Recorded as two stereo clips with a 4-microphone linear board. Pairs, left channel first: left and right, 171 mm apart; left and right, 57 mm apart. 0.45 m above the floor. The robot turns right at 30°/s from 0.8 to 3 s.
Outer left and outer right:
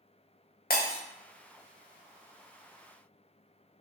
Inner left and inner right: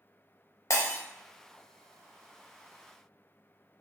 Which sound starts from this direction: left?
Breaking glass, at 0.7 s.